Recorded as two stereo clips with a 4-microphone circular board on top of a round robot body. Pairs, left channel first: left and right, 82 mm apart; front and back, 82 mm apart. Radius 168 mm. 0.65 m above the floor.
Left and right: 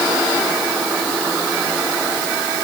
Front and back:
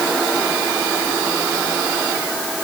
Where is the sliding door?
I don't hear a sliding door.